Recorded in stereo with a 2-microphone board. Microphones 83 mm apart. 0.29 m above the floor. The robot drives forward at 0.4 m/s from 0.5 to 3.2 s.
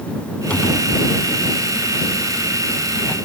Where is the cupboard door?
15° left (ahead or behind); by 3.1 s 20° left (ahead or behind).